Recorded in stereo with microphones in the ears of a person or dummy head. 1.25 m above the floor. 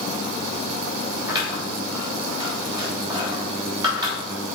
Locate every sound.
1.3 s scissors: 25° right (ahead or behind), 3 m